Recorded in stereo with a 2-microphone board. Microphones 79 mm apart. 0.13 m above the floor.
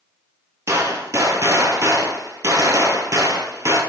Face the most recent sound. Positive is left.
turn(degrees=-40)  # may be behind; listen again after turning